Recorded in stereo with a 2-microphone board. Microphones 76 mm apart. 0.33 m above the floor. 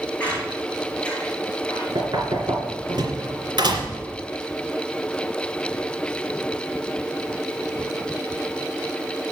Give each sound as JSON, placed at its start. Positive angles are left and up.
{"t": 0.2, "sound": "a squeak", "side_deg": 15, "distance_m": 5.0}
{"t": 1.9, "sound": "knocking", "side_deg": -80, "distance_m": 2.5}